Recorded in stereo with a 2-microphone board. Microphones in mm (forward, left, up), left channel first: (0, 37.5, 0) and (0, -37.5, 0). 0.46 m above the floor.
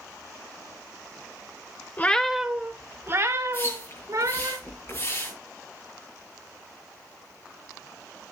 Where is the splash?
40° left (ahead or behind), 7.5 m.